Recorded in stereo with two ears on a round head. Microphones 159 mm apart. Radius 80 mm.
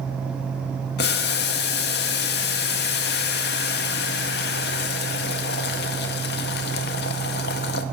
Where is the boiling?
60° left (ahead or behind), 0.6 m.